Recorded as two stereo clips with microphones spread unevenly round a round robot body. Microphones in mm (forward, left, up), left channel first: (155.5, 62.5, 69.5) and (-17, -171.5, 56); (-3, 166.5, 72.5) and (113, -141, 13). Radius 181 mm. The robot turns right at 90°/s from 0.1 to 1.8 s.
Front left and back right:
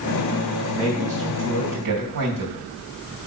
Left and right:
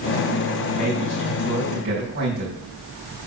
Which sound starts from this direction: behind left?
A man speaking, at 0.7 s.